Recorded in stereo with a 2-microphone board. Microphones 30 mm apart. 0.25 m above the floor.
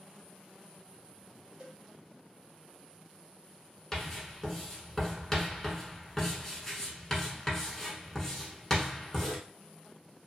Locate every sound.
1.6 s a cowbell: 30° right (ahead or behind), 0.9 m
3.9 s writing: 15° left (ahead or behind), 0.9 m